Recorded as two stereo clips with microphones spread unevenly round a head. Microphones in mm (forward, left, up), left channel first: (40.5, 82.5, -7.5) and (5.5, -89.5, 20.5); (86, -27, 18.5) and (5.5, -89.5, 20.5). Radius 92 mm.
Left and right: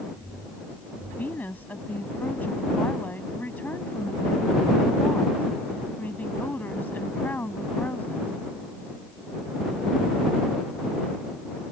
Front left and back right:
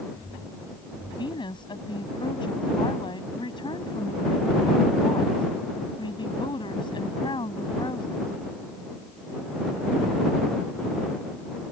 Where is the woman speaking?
5° right.